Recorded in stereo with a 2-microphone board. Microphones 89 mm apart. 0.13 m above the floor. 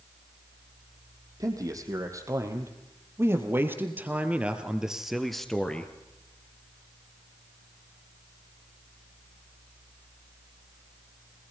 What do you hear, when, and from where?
1.4 s a man speaking: 40° right (ahead or behind), 5 m; by 5.9 s 15° left (ahead or behind), 2.5 m